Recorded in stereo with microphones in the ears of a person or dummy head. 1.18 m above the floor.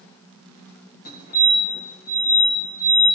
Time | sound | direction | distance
1.1 | a fire alarm | 40° left (ahead or behind) | 3 m